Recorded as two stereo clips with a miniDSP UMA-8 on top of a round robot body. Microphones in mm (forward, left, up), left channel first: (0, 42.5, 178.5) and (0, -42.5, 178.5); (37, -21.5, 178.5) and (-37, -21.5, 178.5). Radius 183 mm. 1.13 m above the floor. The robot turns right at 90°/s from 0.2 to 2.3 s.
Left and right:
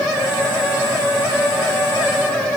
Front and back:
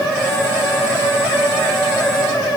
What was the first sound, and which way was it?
Only background noise.